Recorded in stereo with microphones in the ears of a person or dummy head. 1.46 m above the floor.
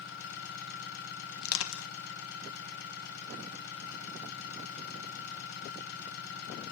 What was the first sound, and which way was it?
An engine running, 55° left (ahead or behind).